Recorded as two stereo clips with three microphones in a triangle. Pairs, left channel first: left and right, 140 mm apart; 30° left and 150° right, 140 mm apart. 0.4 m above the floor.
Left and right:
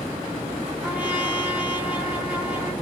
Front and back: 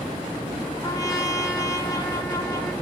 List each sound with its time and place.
0.8 s a trumpet: 15° right, 1.5 m